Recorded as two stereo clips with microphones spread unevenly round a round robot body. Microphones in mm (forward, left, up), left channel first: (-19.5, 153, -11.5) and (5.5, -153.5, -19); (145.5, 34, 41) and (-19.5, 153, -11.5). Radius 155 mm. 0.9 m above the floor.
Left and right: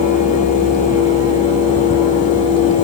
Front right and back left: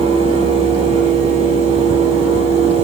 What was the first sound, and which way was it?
Only background noise.